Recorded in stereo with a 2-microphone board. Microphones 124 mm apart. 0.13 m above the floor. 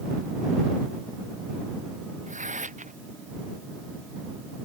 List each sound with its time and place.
2.3 s tearing paper: 85° right